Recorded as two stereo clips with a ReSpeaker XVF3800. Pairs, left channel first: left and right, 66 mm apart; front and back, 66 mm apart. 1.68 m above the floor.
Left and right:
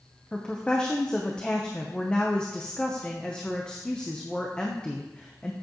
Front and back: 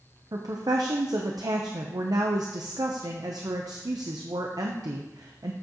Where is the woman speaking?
165° left, 0.7 m.